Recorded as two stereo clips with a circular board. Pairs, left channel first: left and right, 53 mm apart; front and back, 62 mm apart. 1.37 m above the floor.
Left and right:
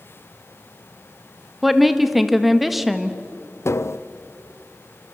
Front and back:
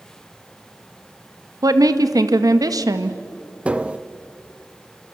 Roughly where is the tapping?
Left.